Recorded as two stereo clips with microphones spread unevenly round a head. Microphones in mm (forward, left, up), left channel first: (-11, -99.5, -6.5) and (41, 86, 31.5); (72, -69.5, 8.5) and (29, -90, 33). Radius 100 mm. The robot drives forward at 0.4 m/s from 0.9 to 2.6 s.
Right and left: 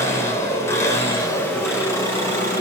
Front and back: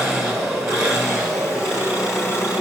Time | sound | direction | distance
0.0 | an engine running | 170° left | 1.6 m